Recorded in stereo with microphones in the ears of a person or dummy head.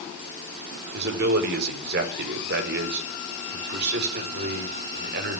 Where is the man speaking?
65° right (ahead or behind), 5.5 m.